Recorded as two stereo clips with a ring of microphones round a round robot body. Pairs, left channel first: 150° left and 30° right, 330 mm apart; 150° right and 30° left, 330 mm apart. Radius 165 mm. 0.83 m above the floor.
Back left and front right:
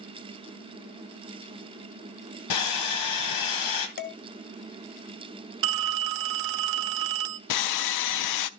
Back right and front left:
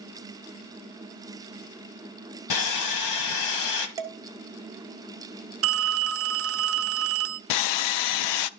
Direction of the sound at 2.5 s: 175° left.